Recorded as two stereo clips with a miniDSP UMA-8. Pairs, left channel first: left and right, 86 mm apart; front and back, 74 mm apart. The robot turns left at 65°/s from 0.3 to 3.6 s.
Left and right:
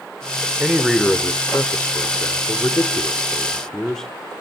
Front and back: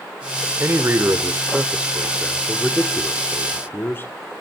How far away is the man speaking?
About 1.1 m.